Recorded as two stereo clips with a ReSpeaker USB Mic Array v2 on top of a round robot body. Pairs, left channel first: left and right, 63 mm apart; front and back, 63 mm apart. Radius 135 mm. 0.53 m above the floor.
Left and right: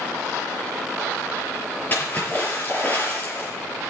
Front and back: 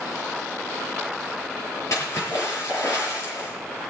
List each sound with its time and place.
1.9 s a splash: 30° left, 7 m